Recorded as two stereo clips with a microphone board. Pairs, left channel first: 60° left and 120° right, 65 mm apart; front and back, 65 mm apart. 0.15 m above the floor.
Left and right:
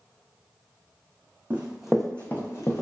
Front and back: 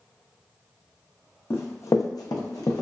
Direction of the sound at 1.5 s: 55° right.